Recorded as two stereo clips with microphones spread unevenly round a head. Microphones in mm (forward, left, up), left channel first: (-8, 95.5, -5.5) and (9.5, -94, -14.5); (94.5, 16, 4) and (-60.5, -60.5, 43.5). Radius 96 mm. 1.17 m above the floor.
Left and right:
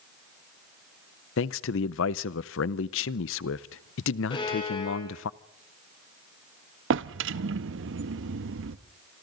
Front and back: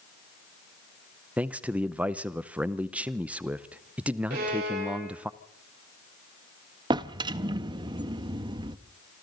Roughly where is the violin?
Behind.